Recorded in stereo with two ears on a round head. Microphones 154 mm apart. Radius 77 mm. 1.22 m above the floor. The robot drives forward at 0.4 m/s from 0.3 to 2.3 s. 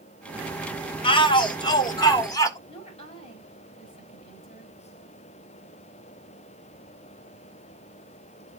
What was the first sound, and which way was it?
A shout, 30° left (ahead or behind).